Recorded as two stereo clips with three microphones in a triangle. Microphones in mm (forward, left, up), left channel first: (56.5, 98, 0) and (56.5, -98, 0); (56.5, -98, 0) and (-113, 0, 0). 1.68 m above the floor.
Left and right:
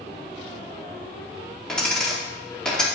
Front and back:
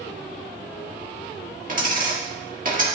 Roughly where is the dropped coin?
Behind.